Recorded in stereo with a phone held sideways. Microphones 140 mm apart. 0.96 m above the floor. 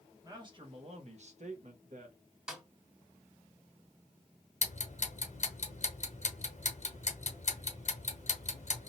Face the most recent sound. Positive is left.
turn(degrees=55)  # may be behind; listen again after turning